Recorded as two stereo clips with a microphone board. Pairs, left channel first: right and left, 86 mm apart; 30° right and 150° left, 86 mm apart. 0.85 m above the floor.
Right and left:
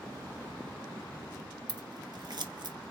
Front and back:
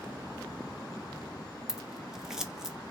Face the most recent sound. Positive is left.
turn(degrees=65)